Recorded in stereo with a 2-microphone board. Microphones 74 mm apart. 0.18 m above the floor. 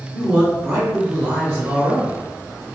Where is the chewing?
No chewing in this recording.